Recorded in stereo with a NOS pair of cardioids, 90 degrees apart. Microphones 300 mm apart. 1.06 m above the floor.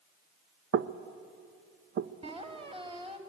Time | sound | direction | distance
0.7 | knocking | 45° right | 0.9 m
2.2 | a squeak | 20° right | 2.5 m